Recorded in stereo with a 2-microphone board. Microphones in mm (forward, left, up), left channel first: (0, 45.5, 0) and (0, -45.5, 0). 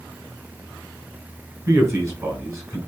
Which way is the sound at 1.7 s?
30° right (ahead or behind).